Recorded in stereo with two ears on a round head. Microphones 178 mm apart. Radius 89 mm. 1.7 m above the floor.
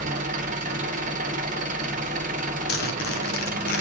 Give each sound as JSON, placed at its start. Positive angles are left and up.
{"t": 0.0, "sound": "an engine running", "side_deg": -40, "distance_m": 1.2}
{"t": 2.7, "sound": "a zipper", "side_deg": 50, "distance_m": 1.7}